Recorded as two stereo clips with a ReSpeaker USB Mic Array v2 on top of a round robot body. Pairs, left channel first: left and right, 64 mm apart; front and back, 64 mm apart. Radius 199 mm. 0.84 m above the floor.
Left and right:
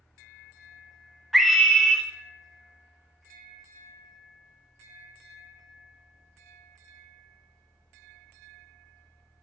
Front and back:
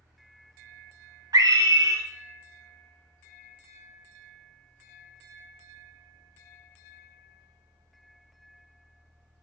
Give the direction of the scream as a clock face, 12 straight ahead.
6 o'clock.